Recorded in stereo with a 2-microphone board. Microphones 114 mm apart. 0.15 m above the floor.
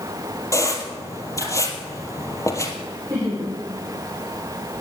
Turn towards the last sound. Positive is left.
turn(degrees=-25)  # may be behind; listen again after turning